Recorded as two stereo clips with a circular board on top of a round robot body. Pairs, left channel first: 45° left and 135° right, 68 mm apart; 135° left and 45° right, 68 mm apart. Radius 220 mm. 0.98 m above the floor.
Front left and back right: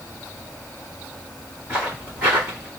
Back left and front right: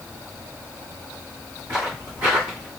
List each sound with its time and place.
1.7 s footsteps: 85° right, 1.6 m; by 2.7 s 60° right, 1.1 m